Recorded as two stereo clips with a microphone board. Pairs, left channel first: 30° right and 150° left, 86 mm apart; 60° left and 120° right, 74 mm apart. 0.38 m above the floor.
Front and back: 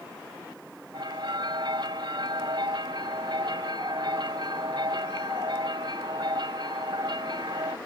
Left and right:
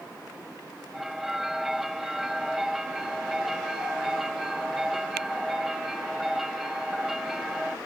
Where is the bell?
155° left.